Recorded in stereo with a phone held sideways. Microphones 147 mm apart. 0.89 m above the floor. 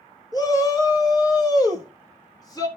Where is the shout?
30° left (ahead or behind), 1.2 m.